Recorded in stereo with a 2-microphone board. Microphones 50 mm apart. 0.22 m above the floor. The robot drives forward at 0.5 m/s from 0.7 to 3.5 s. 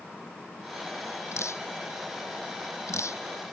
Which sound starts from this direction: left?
Dripping, at 1.3 s.